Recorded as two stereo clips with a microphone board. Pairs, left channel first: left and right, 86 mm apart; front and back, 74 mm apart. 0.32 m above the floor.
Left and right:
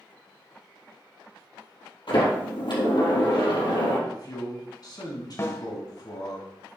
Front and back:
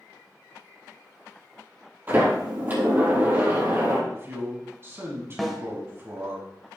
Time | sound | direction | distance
2.1 | a sliding door | 115° left | 3 m
4.1 | a man speaking | 125° left | 2 m
5.4 | a snare drum | 90° left | 1.1 m